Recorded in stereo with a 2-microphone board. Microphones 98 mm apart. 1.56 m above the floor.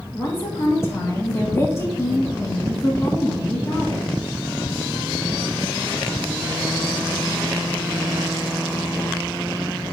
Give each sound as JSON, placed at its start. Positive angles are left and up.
{"t": 0.1, "sound": "a woman speaking", "side_deg": 30, "distance_m": 2.5}